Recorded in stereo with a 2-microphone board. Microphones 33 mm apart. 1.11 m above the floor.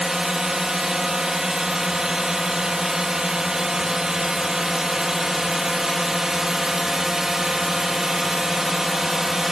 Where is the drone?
20° right (ahead or behind).